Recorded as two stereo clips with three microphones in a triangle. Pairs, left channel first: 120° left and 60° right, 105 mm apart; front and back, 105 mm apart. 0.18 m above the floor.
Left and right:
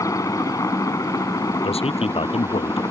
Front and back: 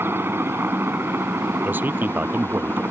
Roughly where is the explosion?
I don't hear an explosion.